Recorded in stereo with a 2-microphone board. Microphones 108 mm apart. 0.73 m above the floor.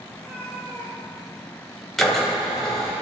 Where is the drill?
Centre (ahead or behind), 1.8 m.